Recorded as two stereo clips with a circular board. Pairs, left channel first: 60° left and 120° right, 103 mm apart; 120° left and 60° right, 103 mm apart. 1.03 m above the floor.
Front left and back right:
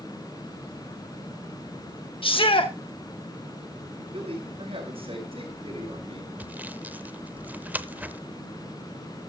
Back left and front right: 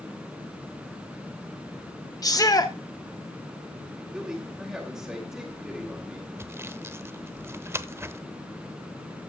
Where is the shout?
75° left, 1.4 m.